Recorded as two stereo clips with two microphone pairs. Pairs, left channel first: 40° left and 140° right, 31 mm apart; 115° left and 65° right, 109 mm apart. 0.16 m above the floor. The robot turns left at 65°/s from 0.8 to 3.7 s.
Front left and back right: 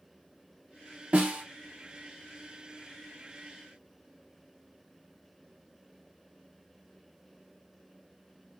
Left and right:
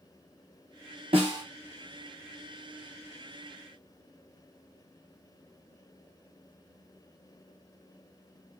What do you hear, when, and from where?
1.1 s a snare drum: 100° right, 1.7 m; by 1.4 s 120° right, 1.7 m